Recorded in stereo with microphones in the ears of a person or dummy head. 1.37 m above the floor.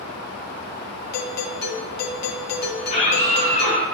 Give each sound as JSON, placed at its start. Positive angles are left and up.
{"t": 1.1, "sound": "a doorbell", "side_deg": 55, "distance_m": 1.5}
{"t": 2.8, "sound": "a scream", "side_deg": 45, "distance_m": 7.5}